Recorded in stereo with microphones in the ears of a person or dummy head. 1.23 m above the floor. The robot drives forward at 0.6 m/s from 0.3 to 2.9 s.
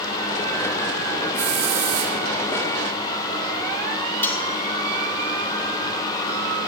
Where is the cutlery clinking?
15° left (ahead or behind), 1.0 m.